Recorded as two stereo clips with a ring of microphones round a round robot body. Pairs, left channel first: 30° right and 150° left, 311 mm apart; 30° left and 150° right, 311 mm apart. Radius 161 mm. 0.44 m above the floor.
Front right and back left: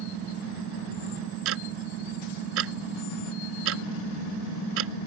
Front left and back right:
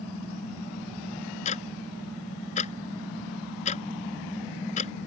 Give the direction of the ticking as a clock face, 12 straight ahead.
9 o'clock.